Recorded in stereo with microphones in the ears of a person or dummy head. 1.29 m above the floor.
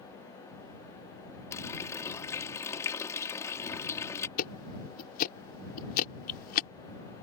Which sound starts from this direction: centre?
A running tap, at 1.5 s.